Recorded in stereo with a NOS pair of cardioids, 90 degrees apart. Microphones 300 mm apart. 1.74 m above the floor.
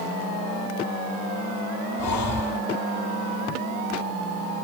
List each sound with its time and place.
2.0 s breathing: 60° left, 0.8 m